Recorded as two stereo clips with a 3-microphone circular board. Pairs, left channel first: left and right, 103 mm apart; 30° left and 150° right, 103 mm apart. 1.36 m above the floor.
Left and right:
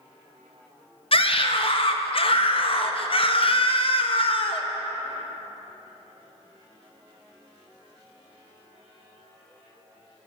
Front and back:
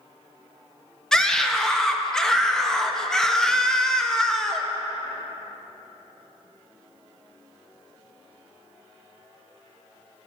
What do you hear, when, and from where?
1.1 s a scream: 115° left, 0.5 m